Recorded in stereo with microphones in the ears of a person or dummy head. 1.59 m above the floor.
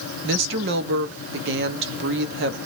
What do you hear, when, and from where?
0.2 s a woman speaking: 65° right (ahead or behind), 0.9 m